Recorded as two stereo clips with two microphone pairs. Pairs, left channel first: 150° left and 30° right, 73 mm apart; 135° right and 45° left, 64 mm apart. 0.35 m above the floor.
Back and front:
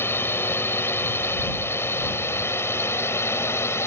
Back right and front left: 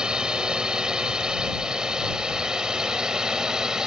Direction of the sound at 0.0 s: 115° left.